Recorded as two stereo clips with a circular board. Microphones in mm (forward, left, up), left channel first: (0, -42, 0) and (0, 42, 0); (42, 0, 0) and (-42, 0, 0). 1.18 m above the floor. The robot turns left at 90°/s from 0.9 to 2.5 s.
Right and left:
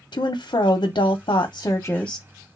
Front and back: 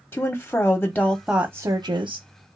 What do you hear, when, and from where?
0.1 s a woman speaking: 70° right, 0.6 m; by 2.3 s 165° left, 0.6 m